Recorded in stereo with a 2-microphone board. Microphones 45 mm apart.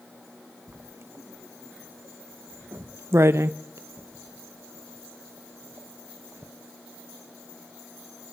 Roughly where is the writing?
Right.